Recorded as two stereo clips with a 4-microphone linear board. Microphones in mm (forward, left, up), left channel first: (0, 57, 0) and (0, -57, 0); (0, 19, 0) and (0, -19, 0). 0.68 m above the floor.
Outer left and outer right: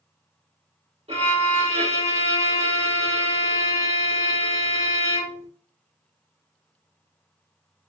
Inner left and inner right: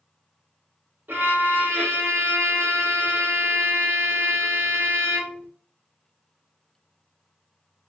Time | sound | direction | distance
1.1 | a violin | 60° right (ahead or behind) | 1.5 m